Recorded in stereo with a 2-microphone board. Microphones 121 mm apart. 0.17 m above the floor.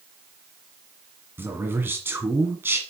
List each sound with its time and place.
1.4 s a man speaking: 20° right (ahead or behind), 1.8 m